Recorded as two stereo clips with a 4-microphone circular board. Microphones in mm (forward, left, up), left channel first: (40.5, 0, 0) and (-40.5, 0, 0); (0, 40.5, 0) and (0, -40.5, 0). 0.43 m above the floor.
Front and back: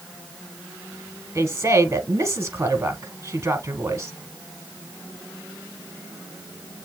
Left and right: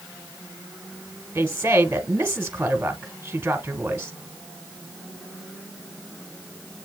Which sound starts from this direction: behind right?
A woman speaking, at 1.4 s.